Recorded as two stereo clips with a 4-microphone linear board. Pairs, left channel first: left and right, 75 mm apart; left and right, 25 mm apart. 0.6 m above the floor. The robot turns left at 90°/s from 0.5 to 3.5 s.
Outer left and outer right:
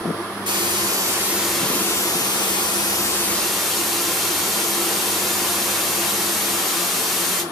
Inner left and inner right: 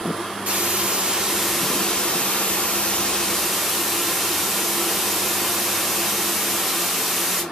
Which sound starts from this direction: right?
A hiss, at 0.5 s.